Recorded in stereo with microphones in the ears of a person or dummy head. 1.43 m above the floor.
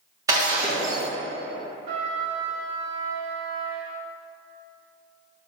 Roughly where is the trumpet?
Right.